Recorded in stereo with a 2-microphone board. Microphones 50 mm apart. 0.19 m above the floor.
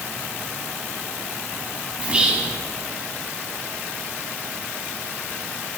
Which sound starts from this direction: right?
Whispering, at 2.0 s.